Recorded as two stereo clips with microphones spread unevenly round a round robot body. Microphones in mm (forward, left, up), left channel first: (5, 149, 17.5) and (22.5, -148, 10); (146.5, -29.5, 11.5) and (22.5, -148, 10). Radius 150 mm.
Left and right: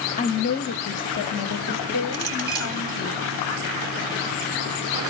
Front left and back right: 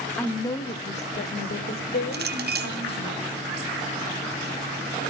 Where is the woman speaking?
115° left, 1.1 m; by 3.1 s 45° left, 2.5 m.